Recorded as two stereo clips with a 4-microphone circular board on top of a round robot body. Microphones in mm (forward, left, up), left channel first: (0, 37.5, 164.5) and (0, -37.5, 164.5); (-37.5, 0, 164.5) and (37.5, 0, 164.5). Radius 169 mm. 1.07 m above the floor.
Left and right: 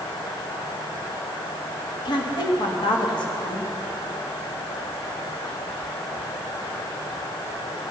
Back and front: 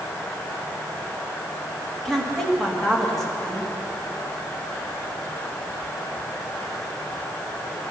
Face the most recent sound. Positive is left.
turn(degrees=95)